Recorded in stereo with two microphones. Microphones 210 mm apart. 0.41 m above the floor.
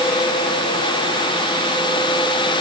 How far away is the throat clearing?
No throat clearing in this recording.